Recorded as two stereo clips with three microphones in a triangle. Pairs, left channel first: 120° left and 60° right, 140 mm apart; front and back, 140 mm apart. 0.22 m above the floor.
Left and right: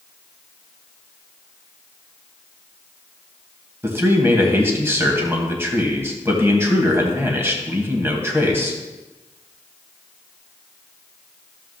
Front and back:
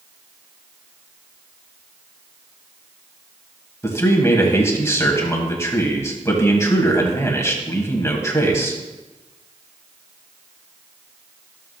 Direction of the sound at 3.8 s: 25° right.